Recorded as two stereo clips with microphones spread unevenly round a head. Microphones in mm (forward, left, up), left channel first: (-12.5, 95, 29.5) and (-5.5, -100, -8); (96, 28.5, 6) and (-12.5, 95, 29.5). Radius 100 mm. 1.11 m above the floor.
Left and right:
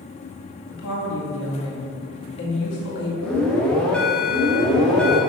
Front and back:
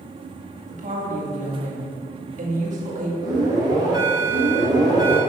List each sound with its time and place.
0.7 s a woman speaking: 125° left, 2 m
3.2 s an alarm: 165° right, 1.4 m